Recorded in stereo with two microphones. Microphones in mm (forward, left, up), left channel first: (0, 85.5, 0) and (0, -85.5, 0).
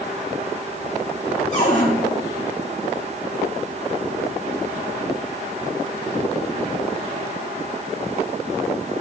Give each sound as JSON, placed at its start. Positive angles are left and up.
{"t": 1.5, "sound": "a cupboard door", "side_deg": 45, "distance_m": 3.5}